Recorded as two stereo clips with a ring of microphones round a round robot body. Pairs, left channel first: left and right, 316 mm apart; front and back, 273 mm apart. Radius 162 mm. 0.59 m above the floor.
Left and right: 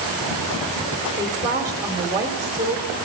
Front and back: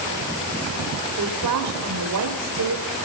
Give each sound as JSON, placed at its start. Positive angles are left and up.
{"t": 1.2, "sound": "a woman speaking", "azimuth_deg": -170, "distance_m": 1.3}